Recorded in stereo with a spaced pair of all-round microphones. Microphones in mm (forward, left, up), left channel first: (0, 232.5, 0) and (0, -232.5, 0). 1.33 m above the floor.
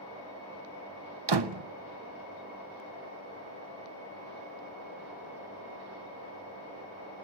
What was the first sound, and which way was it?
A door slam, 60° right (ahead or behind).